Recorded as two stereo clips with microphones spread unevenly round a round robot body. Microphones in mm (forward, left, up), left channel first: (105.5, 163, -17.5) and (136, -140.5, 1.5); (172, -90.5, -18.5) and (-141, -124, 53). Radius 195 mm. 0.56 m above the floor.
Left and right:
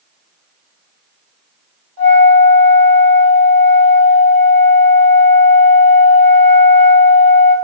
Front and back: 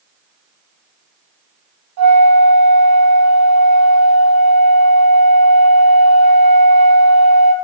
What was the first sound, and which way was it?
A flute, 135° right.